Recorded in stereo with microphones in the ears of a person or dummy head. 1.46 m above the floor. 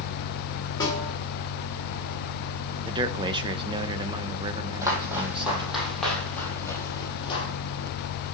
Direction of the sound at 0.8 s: 20° left (ahead or behind).